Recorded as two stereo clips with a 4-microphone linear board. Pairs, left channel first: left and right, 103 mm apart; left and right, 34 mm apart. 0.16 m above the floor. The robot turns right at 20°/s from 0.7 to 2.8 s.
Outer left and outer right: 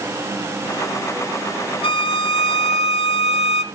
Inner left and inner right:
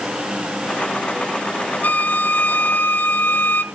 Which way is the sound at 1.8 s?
55° left (ahead or behind).